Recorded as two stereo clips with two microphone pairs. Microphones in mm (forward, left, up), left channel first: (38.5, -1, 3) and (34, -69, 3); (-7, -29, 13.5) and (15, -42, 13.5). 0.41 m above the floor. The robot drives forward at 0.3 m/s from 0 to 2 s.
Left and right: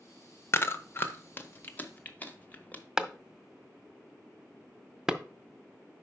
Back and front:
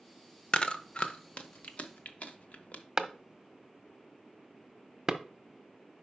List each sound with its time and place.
0.5 s chewing: 115° left, 0.6 m; by 2.8 s 145° left, 0.9 m
3.0 s a clap: 30° right, 0.6 m